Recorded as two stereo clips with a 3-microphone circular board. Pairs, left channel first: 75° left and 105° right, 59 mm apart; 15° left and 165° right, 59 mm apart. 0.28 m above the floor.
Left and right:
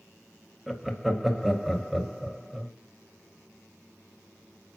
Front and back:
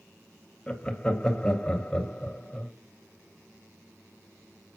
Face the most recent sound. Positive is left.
turn(degrees=-25)